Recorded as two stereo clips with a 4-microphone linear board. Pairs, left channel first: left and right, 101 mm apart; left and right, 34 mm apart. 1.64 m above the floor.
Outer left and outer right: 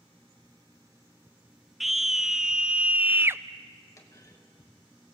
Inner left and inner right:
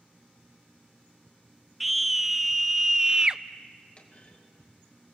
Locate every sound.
1.8 s a scream: centre (ahead or behind), 1.2 m; by 3.4 s 25° right (ahead or behind), 0.5 m
4.0 s a clunk: 35° left (ahead or behind), 2.5 m